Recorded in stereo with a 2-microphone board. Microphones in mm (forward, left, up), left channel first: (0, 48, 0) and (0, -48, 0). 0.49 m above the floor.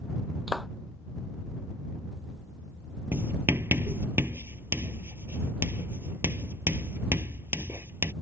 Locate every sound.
0.5 s a clap: centre (ahead or behind)
3.1 s writing: 25° right (ahead or behind)